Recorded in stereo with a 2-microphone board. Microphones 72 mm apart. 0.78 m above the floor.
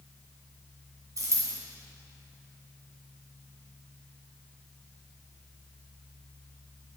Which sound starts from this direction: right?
A dropped coin, at 1.2 s.